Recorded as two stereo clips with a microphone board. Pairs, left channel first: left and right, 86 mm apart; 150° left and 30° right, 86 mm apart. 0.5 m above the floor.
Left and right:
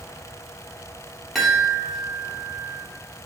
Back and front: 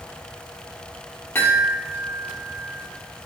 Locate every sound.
1.4 s a chime: 175° left, 0.7 m